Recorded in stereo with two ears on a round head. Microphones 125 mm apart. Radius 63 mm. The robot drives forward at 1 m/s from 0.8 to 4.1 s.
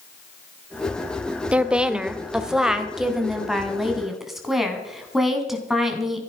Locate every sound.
1.5 s a woman speaking: 10° right (ahead or behind), 0.8 m; by 6.2 s centre (ahead or behind), 3 m